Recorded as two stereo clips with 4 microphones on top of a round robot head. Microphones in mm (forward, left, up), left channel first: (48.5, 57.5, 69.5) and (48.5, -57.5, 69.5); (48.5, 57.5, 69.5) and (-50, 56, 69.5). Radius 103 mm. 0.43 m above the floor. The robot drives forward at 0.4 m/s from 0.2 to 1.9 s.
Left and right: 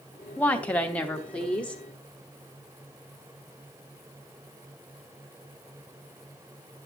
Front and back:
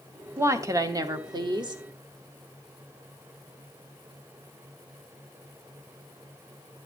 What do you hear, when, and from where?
0.4 s a woman speaking: 155° left, 1.0 m; by 1.8 s 170° left, 1.4 m